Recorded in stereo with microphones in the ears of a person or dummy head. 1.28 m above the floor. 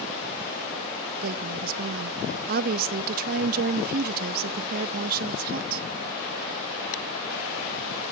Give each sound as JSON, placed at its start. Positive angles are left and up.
{"t": 1.2, "sound": "a woman speaking", "side_deg": -50, "distance_m": 0.7}